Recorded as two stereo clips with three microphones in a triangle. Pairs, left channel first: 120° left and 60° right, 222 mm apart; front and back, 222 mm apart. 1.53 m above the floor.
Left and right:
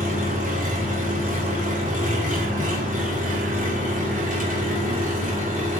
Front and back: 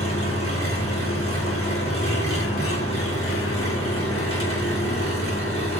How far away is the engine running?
About 3 m.